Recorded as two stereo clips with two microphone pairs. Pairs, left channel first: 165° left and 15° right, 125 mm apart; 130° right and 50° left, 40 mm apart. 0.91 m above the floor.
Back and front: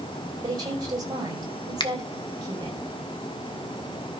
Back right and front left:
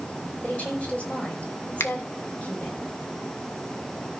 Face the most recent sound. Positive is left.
turn(degrees=-140)